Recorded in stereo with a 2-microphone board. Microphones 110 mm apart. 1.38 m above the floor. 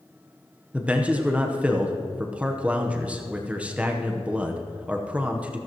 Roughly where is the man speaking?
Centre.